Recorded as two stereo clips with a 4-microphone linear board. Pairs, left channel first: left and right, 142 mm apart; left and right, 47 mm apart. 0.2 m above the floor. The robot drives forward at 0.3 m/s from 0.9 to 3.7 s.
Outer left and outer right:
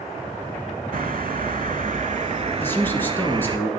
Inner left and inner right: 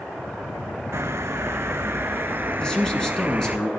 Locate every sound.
0.9 s a bird: 75° right (ahead or behind), 0.5 m; by 3.6 s 35° right (ahead or behind), 0.9 m
2.6 s a man speaking: 15° left (ahead or behind), 1.7 m